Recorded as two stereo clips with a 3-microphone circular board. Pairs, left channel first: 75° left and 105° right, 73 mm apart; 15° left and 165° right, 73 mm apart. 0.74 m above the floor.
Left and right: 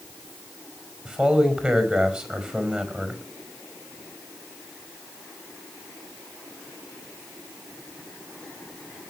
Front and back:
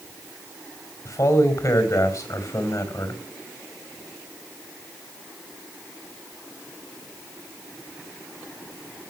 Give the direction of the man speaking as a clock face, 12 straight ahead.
1 o'clock.